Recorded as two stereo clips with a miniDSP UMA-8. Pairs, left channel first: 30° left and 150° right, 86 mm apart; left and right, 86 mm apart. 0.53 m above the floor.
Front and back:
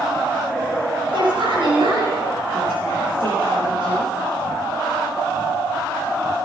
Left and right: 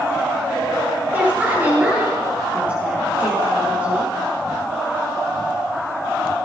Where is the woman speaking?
160° right, 9.5 m; by 4.1 s 165° right, 13 m.